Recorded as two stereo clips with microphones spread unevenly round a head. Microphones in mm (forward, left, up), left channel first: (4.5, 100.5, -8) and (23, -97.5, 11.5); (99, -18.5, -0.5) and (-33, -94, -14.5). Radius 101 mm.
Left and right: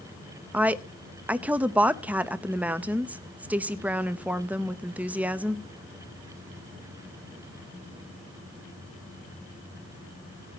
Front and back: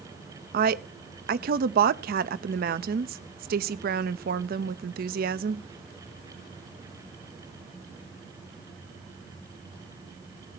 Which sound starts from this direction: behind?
A woman speaking, at 0.5 s.